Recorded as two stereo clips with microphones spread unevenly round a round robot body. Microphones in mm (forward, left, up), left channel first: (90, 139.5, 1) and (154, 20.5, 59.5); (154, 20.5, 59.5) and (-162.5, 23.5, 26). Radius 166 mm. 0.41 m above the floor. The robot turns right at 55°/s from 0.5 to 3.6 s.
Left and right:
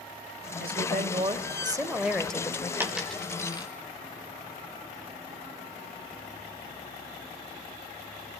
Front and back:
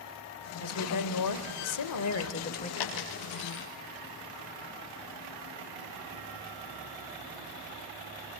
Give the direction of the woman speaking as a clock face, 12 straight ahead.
2 o'clock.